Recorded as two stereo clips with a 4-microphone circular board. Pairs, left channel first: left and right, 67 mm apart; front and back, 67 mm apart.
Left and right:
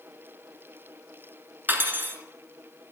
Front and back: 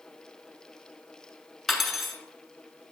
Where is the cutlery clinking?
90° right, 0.7 m.